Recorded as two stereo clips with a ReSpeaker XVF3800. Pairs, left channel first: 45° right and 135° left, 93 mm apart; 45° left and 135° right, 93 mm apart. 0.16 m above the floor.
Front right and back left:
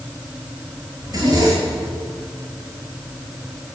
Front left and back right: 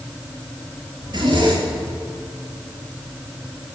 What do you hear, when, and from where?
1.0 s a zipper: 175° right, 7.5 m